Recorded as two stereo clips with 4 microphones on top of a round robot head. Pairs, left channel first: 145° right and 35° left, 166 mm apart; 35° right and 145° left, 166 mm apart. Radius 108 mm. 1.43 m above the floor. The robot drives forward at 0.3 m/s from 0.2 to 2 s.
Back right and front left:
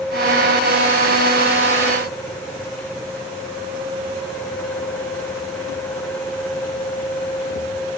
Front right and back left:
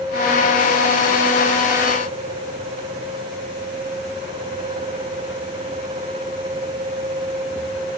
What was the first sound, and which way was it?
Only background noise.